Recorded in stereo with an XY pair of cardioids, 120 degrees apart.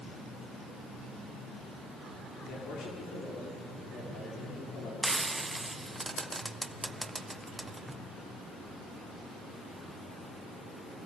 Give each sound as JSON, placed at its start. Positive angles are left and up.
{"t": 2.5, "sound": "a man speaking", "azimuth_deg": 65, "distance_m": 5.5}
{"t": 5.0, "sound": "frying", "azimuth_deg": -15, "distance_m": 0.9}